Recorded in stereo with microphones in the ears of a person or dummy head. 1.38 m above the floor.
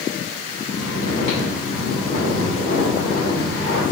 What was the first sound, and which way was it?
Snoring, 70° left (ahead or behind).